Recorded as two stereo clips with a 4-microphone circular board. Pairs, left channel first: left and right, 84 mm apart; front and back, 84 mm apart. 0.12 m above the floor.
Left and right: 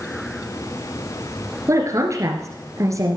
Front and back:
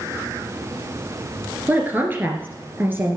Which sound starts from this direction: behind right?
A woman speaking, at 1.7 s.